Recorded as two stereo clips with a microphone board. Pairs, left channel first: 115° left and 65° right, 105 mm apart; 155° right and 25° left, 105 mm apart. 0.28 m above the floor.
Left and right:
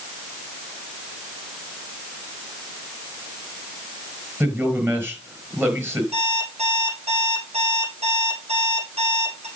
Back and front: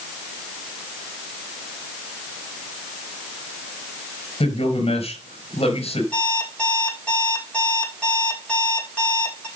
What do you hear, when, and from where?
4.4 s a man speaking: 135° right, 4.5 m
6.1 s an alarm clock: 80° right, 6 m